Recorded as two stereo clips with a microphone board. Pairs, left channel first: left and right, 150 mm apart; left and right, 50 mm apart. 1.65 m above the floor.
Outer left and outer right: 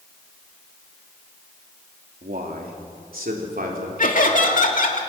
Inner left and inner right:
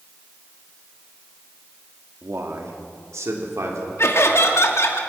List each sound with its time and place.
2.2 s a man speaking: 75° right (ahead or behind), 3 m; by 3.9 s 80° right, 4.5 m
4.0 s laughter: 65° left (ahead or behind), 3 m